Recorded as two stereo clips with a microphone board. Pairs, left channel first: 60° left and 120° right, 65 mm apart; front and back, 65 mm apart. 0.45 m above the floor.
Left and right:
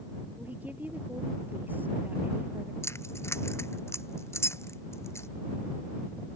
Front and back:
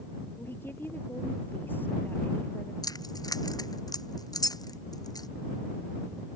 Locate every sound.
0.4 s a woman speaking: 55° right; by 2.7 s 60° right
2.8 s keys jangling: 15° left